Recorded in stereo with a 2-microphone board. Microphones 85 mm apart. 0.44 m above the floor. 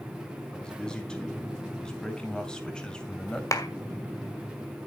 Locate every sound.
0.5 s a man speaking: 10° left (ahead or behind), 3.5 m
3.5 s a clap: 40° left (ahead or behind), 1.8 m